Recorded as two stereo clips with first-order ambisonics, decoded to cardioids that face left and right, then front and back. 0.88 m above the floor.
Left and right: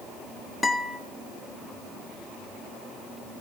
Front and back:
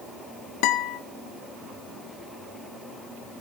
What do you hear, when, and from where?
0.6 s a guitar: 10° left, 1.2 m